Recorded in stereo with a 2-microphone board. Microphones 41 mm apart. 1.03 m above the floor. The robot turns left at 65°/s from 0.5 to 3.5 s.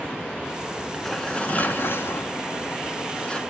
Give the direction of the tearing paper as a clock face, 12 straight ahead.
6 o'clock.